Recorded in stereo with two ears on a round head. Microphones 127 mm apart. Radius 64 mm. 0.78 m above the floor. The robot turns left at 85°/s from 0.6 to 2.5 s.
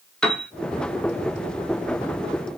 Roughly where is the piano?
Centre.